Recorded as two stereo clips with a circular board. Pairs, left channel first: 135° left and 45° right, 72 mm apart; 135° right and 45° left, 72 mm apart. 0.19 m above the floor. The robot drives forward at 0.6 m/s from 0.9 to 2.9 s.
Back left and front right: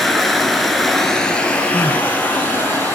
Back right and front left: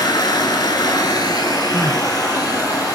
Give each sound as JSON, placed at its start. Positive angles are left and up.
{"t": 0.0, "sound": "running water", "azimuth_deg": -135, "distance_m": 0.8}
{"t": 1.7, "sound": "crying", "azimuth_deg": 65, "distance_m": 0.6}